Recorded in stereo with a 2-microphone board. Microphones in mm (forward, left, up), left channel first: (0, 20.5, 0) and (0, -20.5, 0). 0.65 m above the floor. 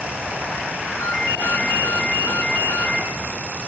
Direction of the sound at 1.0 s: 80° left.